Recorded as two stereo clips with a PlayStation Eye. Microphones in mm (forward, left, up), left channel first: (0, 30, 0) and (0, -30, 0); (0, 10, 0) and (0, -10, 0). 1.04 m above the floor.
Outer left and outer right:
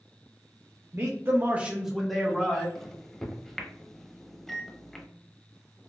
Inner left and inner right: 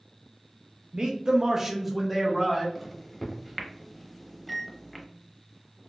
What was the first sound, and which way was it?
A man speaking, 45° right (ahead or behind).